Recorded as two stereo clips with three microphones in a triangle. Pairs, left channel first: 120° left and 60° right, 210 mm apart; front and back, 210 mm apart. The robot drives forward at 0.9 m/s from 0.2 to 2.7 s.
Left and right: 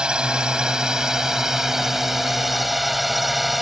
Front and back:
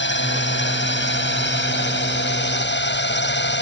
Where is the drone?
25° left; by 3.6 s 30° left.